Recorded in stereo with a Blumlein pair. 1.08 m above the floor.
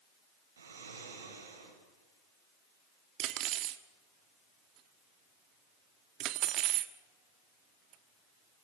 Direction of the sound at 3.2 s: 35° right.